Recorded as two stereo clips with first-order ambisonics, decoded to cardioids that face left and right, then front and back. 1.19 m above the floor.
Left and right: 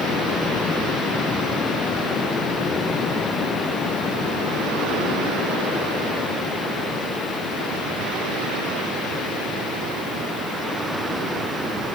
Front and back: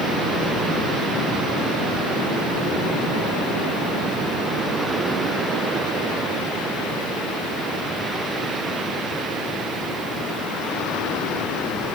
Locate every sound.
Only background noise.